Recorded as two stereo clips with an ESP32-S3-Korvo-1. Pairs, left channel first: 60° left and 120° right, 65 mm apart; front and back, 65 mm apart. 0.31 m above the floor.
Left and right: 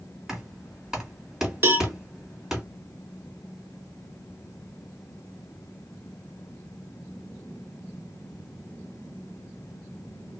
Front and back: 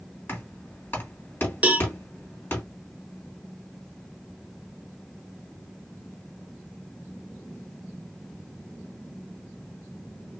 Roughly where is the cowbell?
Behind right.